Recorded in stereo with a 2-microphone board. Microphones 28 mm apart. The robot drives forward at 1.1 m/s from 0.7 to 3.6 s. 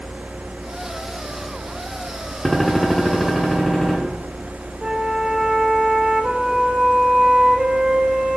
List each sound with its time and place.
2.5 s a gunshot: 5° left (ahead or behind), 1.0 m
4.8 s a flute: 30° right (ahead or behind), 0.9 m